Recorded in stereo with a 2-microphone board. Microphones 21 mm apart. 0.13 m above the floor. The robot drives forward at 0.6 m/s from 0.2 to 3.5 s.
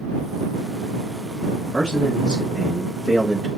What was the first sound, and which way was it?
A man speaking, 45° right (ahead or behind).